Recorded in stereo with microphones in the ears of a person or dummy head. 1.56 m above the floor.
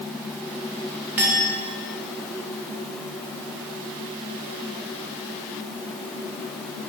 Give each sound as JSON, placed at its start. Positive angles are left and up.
{"t": 1.2, "sound": "a clink", "side_deg": -10, "distance_m": 0.5}